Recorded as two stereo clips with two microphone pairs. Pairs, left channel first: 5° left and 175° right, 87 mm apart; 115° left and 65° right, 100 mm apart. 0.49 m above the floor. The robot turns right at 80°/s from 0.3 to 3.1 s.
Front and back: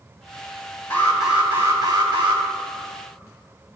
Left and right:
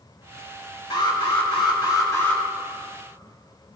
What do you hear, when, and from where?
0.9 s an alarm: 70° left, 4.5 m; by 2.4 s 165° right, 4.5 m